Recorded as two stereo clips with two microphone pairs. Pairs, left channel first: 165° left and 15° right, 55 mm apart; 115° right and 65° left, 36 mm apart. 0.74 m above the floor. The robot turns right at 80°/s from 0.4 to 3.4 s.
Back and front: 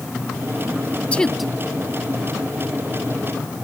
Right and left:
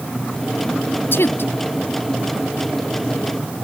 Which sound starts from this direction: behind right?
A woman speaking, at 1.1 s.